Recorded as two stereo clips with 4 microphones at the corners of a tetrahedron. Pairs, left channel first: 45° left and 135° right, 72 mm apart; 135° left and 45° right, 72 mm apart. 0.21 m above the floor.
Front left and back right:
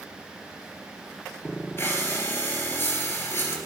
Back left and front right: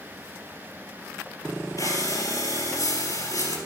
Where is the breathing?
105° left, 3 m.